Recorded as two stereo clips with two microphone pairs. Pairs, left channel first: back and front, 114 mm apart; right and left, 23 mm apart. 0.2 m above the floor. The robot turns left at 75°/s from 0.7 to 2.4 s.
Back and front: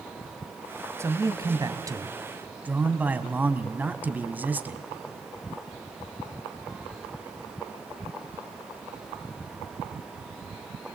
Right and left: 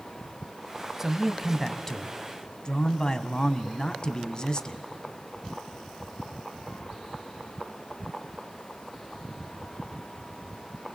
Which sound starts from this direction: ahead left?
A man speaking, at 1.0 s.